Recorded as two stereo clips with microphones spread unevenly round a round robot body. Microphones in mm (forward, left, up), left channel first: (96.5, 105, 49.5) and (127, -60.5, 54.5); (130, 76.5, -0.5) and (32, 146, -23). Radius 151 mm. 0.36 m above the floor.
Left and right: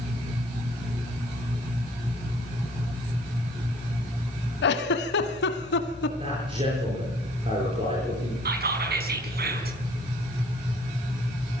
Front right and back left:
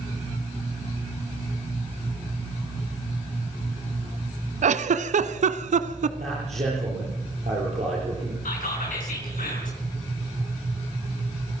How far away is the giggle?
About 1.0 m.